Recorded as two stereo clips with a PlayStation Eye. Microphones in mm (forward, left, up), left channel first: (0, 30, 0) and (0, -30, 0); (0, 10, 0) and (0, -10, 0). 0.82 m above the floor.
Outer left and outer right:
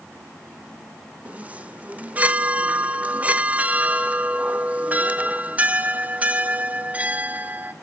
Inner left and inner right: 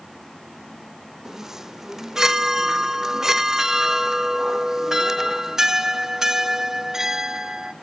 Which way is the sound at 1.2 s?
25° right (ahead or behind).